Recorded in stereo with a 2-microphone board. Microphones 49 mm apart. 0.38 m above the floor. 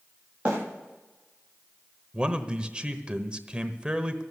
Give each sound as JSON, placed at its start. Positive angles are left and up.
{"t": 0.5, "sound": "a bird", "side_deg": -30, "distance_m": 8.5}
{"t": 2.1, "sound": "a man speaking", "side_deg": -20, "distance_m": 1.1}